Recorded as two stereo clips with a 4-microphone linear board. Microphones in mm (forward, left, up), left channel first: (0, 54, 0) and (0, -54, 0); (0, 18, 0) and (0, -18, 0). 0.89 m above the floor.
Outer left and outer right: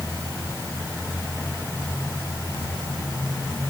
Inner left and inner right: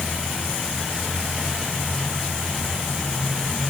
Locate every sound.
Only background noise.